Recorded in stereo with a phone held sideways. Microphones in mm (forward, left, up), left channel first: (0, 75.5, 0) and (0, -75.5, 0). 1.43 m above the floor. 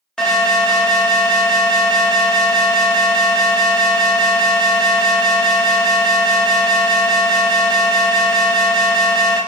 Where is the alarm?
5° left (ahead or behind), 0.8 m.